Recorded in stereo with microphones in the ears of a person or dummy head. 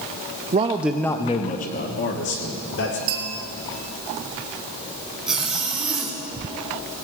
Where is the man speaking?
25° right (ahead or behind), 0.5 m; by 3.0 s 55° left (ahead or behind), 1.9 m.